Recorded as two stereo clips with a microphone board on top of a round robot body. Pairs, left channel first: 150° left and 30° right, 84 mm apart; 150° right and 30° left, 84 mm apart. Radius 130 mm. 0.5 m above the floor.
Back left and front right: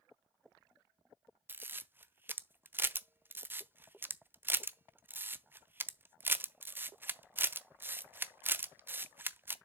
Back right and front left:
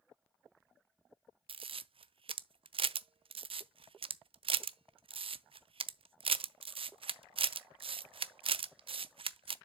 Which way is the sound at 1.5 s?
35° left.